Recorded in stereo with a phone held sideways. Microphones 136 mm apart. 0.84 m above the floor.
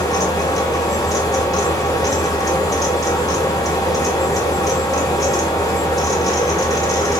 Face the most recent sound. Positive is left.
turn(degrees=25)  # may be behind; listen again after turning